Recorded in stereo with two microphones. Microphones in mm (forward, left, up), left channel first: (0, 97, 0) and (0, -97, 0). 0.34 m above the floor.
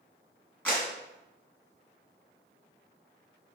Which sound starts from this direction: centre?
A clap, at 0.7 s.